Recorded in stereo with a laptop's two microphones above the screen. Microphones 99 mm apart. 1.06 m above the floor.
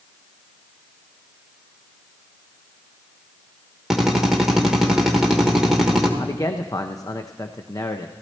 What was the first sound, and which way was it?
A drill, 5° right (ahead or behind).